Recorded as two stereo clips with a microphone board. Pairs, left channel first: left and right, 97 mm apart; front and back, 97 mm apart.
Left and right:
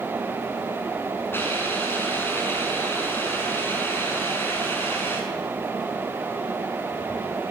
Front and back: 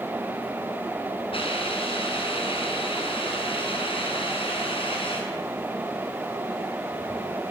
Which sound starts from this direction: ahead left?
A hiss, at 1.3 s.